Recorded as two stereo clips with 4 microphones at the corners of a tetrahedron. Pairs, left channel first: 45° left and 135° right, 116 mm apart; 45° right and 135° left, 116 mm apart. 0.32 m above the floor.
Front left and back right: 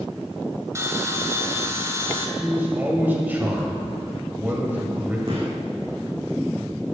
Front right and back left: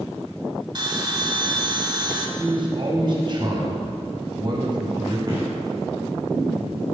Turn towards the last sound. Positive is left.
turn(degrees=-175)